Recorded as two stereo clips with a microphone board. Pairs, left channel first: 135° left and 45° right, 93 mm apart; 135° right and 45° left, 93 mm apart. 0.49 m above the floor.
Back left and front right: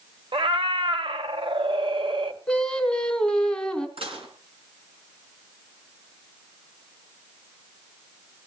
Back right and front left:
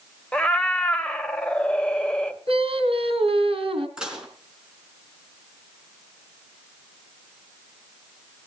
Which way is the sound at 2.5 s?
50° left.